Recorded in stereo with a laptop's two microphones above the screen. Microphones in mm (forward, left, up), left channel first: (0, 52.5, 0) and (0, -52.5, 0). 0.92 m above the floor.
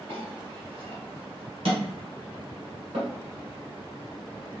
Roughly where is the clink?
Right.